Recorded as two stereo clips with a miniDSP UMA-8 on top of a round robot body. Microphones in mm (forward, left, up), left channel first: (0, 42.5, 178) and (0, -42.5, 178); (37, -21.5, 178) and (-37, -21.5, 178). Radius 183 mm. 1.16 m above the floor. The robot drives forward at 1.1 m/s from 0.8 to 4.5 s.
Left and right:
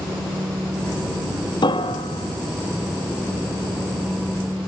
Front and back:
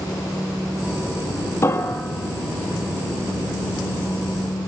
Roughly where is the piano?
Ahead left.